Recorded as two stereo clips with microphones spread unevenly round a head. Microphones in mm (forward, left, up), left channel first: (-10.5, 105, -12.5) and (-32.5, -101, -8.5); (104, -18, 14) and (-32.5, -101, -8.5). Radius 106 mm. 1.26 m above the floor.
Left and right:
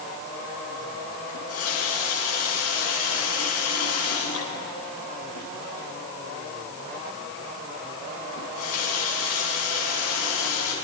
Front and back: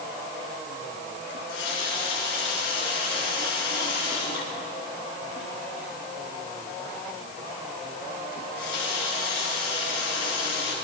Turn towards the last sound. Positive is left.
turn(degrees=70)